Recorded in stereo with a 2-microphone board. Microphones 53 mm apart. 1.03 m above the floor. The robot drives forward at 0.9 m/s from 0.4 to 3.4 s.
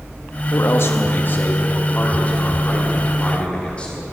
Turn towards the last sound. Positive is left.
turn(degrees=20)  # may be behind; listen again after turning